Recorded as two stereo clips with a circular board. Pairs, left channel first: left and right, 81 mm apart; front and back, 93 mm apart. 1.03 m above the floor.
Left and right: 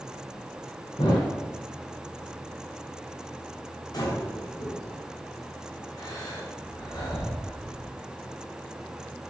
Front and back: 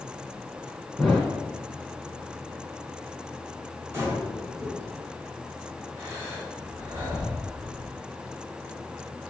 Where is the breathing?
115° left, 4.5 m.